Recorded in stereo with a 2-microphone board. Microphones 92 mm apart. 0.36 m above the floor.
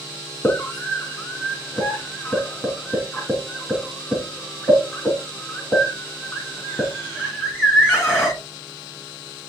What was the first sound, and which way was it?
A scream, 25° left (ahead or behind).